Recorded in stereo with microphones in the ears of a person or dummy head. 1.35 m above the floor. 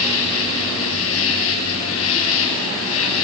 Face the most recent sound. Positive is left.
turn(degrees=70)  # may be behind; listen again after turning